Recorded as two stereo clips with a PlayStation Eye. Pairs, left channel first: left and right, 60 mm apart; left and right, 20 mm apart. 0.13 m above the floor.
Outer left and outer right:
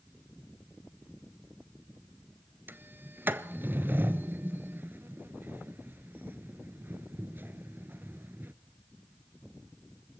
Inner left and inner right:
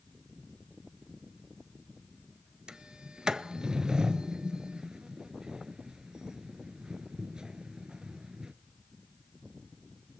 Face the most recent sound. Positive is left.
turn(degrees=-35)  # may be behind; listen again after turning